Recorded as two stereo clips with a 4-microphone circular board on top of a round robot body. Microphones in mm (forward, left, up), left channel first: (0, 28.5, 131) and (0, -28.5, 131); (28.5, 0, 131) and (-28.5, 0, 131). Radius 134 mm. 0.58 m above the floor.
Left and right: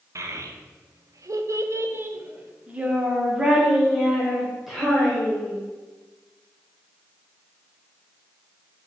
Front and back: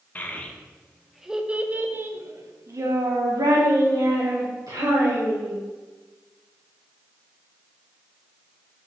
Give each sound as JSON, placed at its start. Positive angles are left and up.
{"t": 0.1, "sound": "a child speaking", "azimuth_deg": -60, "distance_m": 1.0}